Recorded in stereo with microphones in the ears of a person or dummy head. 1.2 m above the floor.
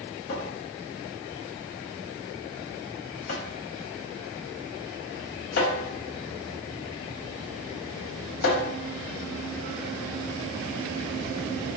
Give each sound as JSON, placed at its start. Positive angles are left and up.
{"t": 0.3, "sound": "a cupboard door", "side_deg": 50, "distance_m": 0.9}